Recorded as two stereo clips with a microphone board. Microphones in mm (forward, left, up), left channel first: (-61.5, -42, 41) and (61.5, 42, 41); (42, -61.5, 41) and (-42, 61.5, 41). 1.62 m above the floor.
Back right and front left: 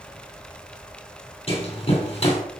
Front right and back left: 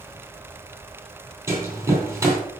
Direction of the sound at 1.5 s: 170° right.